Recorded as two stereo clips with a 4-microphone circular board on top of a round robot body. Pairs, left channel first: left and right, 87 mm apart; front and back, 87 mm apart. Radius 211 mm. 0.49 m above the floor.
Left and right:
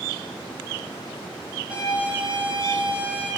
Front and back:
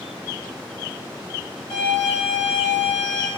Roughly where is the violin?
Ahead.